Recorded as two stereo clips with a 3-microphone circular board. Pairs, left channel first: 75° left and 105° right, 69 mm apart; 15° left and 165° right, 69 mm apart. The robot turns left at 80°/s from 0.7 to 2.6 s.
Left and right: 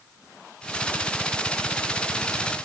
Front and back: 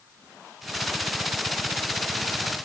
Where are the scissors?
I don't hear scissors.